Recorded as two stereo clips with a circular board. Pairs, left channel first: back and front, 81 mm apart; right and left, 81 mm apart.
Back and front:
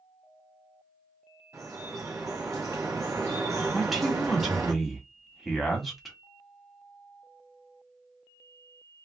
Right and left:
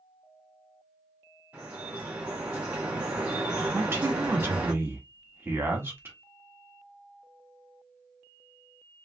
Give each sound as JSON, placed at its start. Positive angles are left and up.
{"t": 1.5, "sound": "dripping", "azimuth_deg": 25, "distance_m": 1.5}
{"t": 3.7, "sound": "a man speaking", "azimuth_deg": 90, "distance_m": 1.1}